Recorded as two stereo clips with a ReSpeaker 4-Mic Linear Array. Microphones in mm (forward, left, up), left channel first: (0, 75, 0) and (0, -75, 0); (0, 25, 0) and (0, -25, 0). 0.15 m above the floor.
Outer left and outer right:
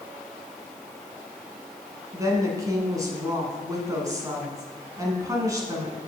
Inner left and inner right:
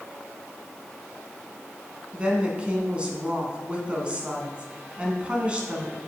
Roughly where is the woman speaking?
Right.